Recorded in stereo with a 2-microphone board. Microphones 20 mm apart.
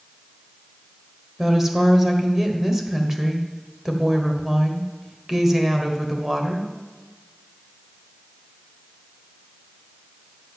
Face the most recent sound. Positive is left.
turn(degrees=-20)  # may be behind; listen again after turning